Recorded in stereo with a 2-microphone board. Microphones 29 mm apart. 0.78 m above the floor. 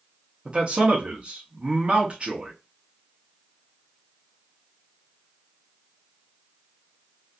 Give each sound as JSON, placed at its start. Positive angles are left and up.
{"t": 0.5, "sound": "a man speaking", "side_deg": -40, "distance_m": 0.8}